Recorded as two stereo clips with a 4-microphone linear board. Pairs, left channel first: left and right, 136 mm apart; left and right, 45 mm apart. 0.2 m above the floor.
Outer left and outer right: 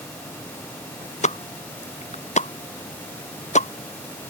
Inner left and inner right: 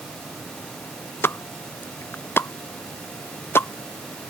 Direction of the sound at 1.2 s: 55° left (ahead or behind).